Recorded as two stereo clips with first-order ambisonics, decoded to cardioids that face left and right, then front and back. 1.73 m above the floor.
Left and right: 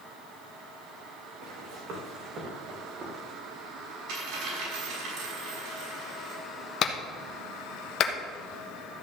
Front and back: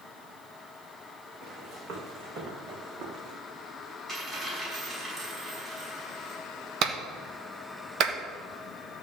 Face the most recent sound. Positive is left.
turn(degrees=140)